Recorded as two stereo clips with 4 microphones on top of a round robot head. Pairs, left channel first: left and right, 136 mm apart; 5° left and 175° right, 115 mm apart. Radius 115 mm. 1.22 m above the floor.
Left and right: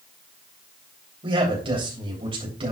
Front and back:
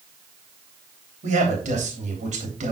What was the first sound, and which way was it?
A man speaking, 150° right.